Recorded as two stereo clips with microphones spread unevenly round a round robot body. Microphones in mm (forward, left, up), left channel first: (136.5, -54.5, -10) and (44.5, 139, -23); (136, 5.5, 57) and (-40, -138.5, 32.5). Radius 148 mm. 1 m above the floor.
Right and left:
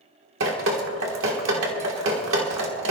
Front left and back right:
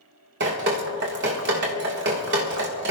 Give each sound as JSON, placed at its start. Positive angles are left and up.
{"t": 0.4, "sound": "dripping", "azimuth_deg": 165, "distance_m": 1.5}